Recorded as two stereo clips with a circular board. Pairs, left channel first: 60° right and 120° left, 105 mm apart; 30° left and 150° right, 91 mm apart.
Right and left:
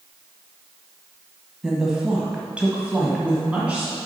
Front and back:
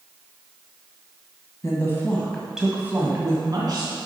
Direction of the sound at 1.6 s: 40° left.